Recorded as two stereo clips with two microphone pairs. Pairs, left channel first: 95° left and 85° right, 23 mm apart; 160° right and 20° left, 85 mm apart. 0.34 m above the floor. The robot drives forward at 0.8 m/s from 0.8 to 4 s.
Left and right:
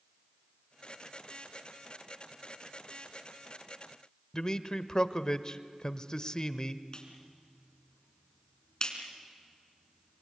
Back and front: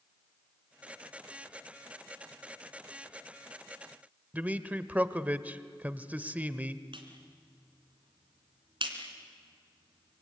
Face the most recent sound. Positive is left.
turn(degrees=30)